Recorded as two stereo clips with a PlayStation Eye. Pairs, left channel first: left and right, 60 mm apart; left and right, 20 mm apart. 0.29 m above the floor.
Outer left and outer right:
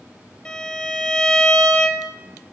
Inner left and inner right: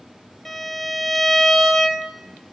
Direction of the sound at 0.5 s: 20° left (ahead or behind).